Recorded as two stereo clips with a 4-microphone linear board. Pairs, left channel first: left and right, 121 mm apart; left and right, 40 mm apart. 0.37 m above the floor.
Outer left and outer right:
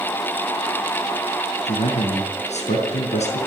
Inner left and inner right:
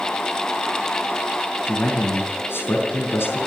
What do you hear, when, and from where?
1.6 s a man speaking: 75° left (ahead or behind), 5.5 m